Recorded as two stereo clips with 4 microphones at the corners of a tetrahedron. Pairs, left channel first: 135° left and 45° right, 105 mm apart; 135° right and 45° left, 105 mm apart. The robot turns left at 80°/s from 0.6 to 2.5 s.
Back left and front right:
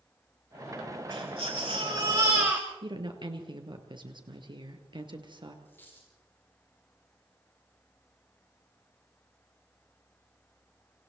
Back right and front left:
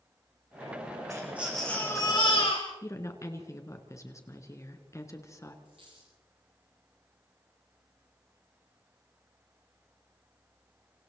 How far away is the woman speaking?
About 2.5 m.